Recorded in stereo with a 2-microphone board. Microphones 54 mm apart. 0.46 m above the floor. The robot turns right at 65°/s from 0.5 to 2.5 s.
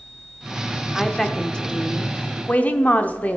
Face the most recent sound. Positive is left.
turn(degrees=30)  # may be behind; listen again after turning